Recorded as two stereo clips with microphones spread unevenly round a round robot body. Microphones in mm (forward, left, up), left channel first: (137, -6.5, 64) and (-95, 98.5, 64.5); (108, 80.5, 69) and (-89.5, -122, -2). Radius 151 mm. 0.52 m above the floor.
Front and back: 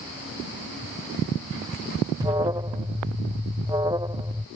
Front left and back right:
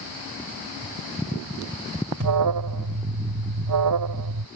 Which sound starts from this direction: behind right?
An alarm, at 2.2 s.